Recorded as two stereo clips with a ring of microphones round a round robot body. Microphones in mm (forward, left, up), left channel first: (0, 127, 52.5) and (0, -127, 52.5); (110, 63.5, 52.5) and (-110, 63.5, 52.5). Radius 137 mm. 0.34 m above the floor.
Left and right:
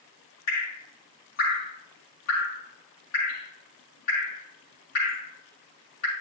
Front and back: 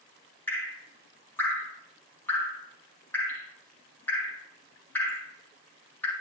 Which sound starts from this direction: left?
Dripping, at 0.5 s.